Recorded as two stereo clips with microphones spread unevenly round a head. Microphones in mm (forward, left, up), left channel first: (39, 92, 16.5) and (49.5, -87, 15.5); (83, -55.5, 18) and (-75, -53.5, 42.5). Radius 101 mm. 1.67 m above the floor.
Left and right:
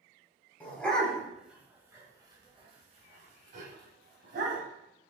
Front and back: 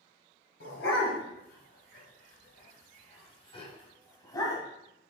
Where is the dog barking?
15° left, 2.5 m; by 4.6 s 70° right, 3 m.